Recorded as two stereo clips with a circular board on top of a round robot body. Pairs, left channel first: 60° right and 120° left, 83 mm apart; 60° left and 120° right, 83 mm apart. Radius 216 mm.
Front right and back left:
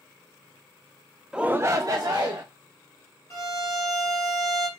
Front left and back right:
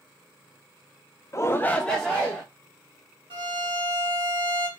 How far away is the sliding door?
No sliding door in this recording.